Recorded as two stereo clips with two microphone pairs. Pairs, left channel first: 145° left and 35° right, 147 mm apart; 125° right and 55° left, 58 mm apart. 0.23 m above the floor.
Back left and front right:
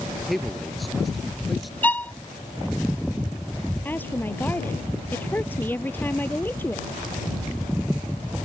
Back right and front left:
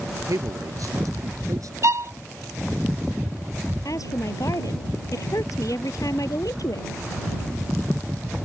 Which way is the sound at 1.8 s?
70° left.